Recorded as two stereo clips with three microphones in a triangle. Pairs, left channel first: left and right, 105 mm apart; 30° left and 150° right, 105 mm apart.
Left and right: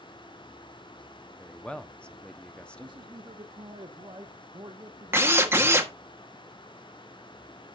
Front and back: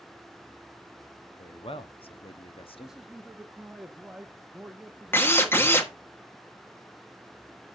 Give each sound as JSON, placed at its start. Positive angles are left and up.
{"t": 1.4, "sound": "a man speaking", "azimuth_deg": 10, "distance_m": 0.9}
{"t": 2.8, "sound": "a man speaking", "azimuth_deg": -65, "distance_m": 0.9}
{"t": 5.1, "sound": "a drill", "azimuth_deg": -30, "distance_m": 1.4}